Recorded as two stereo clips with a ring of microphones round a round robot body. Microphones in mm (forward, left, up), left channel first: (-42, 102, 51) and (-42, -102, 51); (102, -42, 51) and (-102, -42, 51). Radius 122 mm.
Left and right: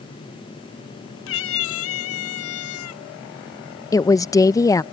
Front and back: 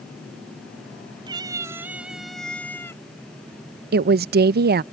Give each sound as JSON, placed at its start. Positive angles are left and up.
{"t": 1.3, "sound": "a cat meowing", "azimuth_deg": 110}
{"t": 3.9, "sound": "a woman speaking", "azimuth_deg": 160}